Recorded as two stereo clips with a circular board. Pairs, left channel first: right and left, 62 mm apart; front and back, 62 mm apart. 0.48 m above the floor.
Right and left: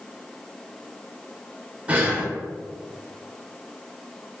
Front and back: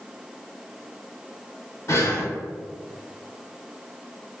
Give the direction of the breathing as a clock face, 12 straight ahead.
11 o'clock.